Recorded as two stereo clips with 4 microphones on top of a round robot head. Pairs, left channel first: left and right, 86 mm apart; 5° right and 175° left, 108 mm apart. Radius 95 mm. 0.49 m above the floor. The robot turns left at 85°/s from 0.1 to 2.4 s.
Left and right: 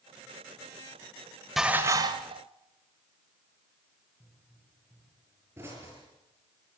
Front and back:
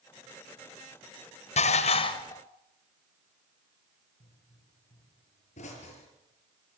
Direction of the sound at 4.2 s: 20° right.